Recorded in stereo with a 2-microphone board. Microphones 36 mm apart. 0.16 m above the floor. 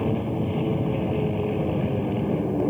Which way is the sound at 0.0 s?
Centre (ahead or behind).